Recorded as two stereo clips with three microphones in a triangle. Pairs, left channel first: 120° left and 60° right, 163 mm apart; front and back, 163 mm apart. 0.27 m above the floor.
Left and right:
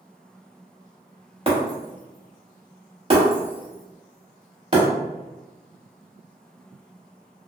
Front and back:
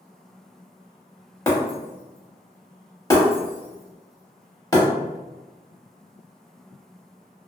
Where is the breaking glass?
55° right, 0.9 m.